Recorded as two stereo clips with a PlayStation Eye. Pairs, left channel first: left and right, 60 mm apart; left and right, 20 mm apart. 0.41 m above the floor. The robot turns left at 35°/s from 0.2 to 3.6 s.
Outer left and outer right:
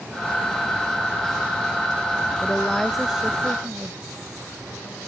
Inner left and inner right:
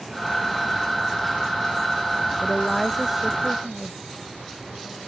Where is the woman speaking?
15° left; by 4.0 s 25° right.